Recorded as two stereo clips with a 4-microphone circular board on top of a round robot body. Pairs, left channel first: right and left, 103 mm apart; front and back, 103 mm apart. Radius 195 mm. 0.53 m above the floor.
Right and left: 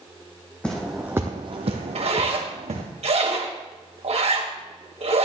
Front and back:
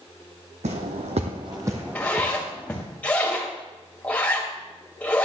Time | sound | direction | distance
0.6 | footsteps | 170° right | 1.6 m
1.9 | a zipper | 75° left | 2 m